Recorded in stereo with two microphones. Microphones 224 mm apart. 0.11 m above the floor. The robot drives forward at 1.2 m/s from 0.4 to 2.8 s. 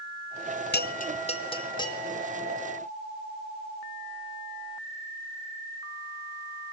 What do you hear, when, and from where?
0.7 s a bell: 50° left (ahead or behind), 0.8 m; by 2.0 s 15° left (ahead or behind), 2 m